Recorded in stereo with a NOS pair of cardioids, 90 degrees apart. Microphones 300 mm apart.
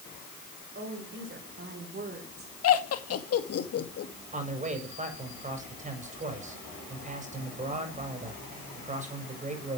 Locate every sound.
0.8 s a woman speaking: 40° right, 5.5 m; by 2.5 s 30° right, 4.5 m
2.6 s laughter: 50° left, 2 m
4.3 s a man speaking: 25° right, 5 m